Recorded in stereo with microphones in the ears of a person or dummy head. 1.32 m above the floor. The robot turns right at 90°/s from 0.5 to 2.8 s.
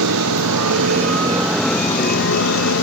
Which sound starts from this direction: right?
A motorcycle, at 0.0 s.